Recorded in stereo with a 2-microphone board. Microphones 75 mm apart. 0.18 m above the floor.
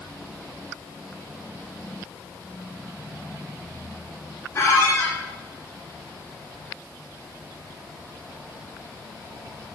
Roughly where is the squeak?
Left.